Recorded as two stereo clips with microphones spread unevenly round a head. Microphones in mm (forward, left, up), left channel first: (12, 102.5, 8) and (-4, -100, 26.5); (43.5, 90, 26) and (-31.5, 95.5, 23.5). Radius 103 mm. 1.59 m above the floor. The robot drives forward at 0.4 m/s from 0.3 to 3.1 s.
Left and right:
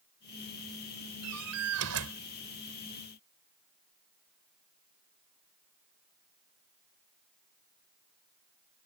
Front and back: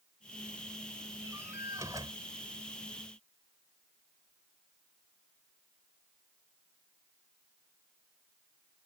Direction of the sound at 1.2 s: 105° right.